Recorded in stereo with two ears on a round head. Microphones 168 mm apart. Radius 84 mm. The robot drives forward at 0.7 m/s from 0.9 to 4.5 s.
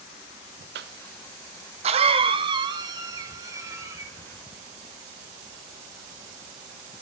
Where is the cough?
60° right (ahead or behind), 0.9 m; by 4.1 s 15° right (ahead or behind), 2.5 m.